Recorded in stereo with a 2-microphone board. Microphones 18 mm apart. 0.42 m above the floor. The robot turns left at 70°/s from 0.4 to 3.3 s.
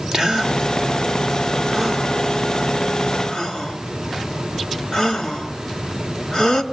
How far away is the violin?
I don't hear a violin.